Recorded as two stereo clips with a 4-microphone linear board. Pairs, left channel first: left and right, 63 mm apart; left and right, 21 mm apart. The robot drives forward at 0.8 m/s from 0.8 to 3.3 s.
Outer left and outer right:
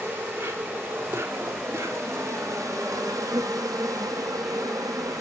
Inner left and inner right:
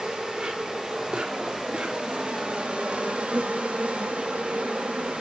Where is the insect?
35° right (ahead or behind), 3 m; by 5.2 s 70° right (ahead or behind), 2.0 m.